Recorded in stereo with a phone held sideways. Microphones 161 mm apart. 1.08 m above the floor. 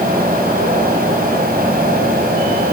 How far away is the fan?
About 7 m.